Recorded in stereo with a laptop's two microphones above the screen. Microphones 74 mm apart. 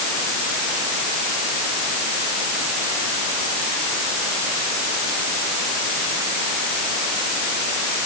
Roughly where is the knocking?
No knocking in this recording.